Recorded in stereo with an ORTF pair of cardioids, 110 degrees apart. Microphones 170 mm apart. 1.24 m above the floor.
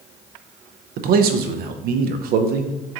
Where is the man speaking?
65° right, 0.5 m.